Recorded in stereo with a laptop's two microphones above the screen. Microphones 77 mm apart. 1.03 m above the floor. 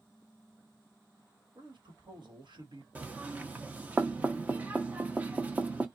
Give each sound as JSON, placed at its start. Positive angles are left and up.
{"t": 1.6, "sound": "a man speaking", "side_deg": -70, "distance_m": 1.3}
{"t": 3.0, "sound": "knocking", "side_deg": -20, "distance_m": 0.8}